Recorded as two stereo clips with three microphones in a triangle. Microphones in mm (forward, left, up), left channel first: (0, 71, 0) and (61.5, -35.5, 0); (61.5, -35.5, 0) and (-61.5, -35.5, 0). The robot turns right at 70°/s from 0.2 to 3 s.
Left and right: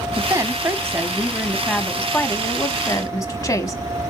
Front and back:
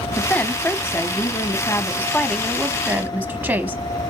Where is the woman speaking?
75° right, 1.0 m; by 3.8 s 120° left, 1.0 m.